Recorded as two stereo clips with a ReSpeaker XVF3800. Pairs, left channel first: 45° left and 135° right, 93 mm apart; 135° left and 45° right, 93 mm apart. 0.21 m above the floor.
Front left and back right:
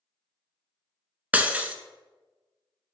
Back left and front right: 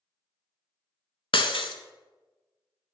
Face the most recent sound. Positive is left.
turn(degrees=150)